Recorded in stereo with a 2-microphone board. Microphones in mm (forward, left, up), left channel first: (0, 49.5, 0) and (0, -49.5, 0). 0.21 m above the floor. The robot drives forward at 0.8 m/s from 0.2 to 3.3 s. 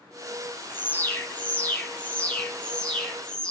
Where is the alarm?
25° left (ahead or behind), 1.5 m; by 3.5 s 10° left (ahead or behind), 3 m.